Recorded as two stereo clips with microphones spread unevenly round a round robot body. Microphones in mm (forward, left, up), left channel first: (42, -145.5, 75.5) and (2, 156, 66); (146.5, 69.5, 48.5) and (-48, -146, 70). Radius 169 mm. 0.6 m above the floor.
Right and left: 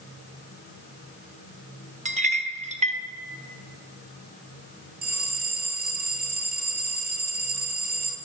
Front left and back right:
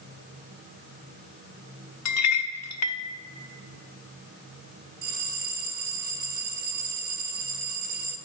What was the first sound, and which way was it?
A clink, 35° left.